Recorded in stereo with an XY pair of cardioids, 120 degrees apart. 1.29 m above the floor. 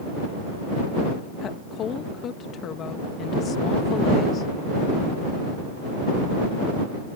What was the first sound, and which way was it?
A woman speaking, 55° left.